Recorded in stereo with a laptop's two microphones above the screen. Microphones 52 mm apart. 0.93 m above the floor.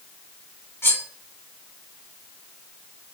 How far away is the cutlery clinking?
About 2 m.